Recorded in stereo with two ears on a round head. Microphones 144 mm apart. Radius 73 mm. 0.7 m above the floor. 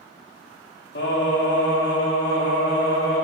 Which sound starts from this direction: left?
Singing, at 0.9 s.